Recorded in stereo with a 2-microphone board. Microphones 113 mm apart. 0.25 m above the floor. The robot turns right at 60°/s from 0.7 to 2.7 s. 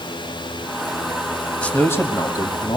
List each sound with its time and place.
1.6 s a man speaking: 15° left, 1.4 m; by 2.8 s 80° left, 1.4 m